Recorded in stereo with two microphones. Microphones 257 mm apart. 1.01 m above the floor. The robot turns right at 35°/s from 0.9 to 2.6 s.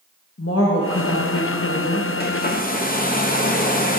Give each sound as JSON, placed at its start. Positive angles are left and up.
{"t": 0.4, "sound": "a woman speaking", "azimuth_deg": 70, "distance_m": 0.9}
{"t": 2.2, "sound": "a hair dryer", "side_deg": 35, "distance_m": 0.5}